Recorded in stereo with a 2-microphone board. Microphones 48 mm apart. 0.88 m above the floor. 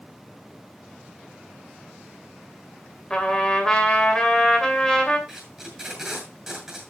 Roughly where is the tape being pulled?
Centre.